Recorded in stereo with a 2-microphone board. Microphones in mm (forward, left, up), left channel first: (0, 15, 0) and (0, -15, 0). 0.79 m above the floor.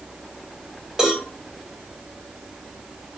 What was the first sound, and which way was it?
A cowbell, 20° right (ahead or behind).